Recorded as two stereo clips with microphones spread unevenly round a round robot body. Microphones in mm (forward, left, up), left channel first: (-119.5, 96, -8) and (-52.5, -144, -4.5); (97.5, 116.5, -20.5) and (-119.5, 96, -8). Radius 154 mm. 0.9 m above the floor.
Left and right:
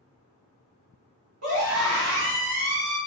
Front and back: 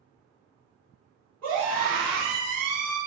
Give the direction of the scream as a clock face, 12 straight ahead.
3 o'clock.